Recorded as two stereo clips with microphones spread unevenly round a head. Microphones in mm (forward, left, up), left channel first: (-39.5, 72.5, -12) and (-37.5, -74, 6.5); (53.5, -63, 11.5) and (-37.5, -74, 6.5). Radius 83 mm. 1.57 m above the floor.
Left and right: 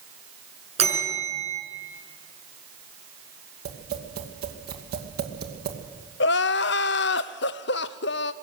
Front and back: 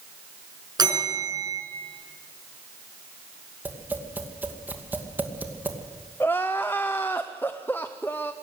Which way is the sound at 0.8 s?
130° right.